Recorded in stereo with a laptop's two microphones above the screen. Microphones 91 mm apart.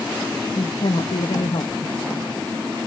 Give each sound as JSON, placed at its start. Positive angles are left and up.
{"t": 0.6, "sound": "a woman speaking", "side_deg": 80, "distance_m": 1.0}